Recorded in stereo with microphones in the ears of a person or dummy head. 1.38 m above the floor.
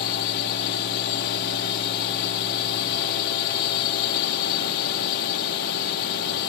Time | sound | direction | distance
0.0 | a drone | 60° left (ahead or behind) | ?